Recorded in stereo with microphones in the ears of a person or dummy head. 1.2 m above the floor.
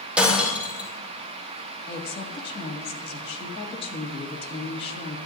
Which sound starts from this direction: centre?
Breaking glass, at 0.2 s.